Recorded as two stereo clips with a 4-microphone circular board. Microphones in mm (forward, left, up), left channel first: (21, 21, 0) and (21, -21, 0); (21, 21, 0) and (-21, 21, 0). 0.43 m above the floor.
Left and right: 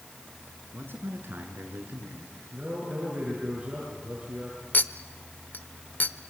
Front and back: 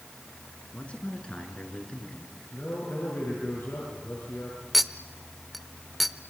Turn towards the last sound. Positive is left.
turn(degrees=90)